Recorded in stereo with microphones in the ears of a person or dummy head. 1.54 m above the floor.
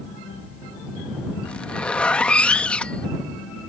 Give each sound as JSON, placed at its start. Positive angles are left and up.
{"t": 1.4, "sound": "a zipper", "side_deg": 10}